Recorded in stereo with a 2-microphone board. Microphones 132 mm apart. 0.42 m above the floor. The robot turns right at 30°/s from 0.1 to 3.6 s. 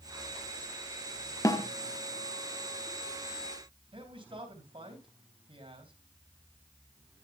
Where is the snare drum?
25° left (ahead or behind), 0.9 m; by 1.7 s 30° left (ahead or behind), 0.9 m.